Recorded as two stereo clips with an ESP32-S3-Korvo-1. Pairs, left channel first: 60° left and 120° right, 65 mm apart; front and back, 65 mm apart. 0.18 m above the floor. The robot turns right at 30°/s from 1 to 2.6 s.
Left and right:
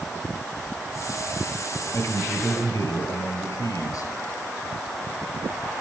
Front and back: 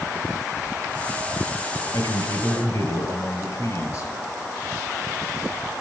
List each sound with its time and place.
1.9 s a man speaking: 10° left, 3.5 m; by 4.1 s 30° left, 3.5 m